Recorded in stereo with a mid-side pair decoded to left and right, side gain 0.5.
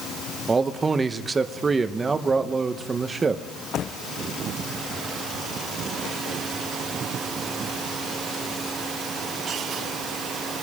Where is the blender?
No blender in this recording.